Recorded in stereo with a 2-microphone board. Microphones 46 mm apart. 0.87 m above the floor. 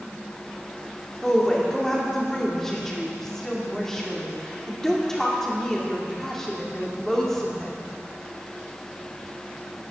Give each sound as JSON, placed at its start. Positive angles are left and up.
{"t": 1.2, "sound": "a woman speaking", "side_deg": 10, "distance_m": 2.0}